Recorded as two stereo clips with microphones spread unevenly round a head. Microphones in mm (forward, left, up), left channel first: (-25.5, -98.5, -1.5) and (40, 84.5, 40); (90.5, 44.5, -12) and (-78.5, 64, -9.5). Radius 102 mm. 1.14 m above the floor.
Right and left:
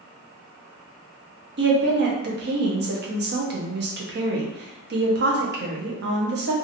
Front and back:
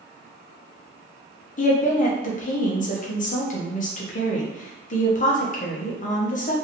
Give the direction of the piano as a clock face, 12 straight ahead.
No piano in this recording.